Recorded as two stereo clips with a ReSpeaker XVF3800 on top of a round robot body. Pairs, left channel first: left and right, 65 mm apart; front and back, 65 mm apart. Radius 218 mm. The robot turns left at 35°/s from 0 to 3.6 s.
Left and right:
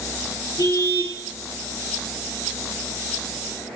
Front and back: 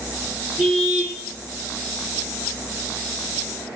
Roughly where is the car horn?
Left.